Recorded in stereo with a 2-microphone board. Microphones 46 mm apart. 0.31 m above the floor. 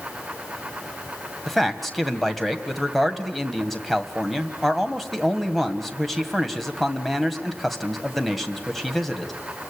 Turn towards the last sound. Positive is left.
turn(degrees=0)  # may be behind; listen again after turning